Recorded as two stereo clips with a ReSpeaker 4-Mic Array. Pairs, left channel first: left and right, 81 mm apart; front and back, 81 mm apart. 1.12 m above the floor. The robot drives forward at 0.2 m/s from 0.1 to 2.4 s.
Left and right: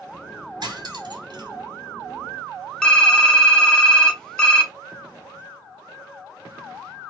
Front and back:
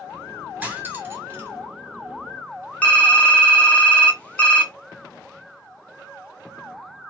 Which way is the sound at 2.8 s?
25° left.